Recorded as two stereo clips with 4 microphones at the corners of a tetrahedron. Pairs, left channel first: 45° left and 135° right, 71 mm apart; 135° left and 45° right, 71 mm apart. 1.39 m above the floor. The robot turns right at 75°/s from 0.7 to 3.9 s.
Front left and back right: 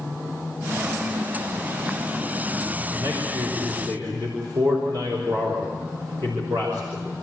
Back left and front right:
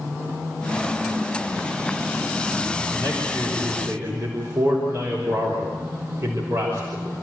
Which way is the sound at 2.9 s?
Straight behind.